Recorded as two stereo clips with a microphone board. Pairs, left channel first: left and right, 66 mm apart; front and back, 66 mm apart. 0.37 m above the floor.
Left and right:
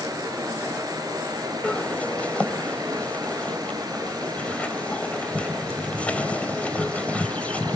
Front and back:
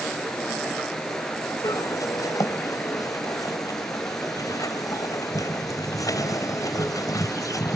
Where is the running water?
85° right, 2.5 m.